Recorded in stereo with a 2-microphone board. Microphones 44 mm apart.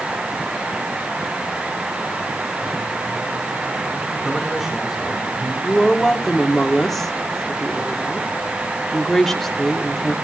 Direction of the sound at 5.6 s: 5° left (ahead or behind).